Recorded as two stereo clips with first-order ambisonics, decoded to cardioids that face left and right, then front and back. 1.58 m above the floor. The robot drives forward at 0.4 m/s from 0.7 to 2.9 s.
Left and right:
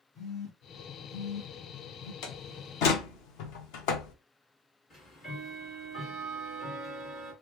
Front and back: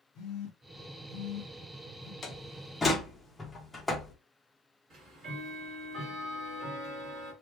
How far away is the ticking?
About 1.6 m.